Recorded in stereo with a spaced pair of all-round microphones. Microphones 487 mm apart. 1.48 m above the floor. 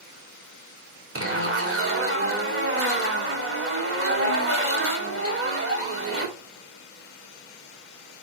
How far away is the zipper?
About 2 m.